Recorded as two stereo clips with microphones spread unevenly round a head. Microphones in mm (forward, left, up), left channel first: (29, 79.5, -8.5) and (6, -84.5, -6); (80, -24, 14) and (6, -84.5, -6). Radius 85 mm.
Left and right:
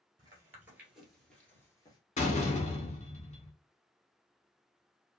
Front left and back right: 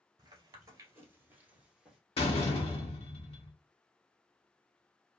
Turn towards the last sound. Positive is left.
turn(degrees=30)